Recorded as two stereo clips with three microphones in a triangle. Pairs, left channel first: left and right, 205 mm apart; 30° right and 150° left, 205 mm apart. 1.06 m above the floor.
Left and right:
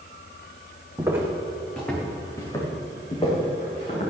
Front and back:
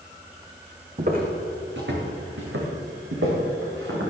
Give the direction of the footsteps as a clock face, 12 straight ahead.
5 o'clock.